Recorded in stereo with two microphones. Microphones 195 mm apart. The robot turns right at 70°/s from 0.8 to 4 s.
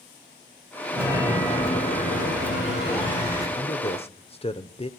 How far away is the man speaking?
About 0.9 m.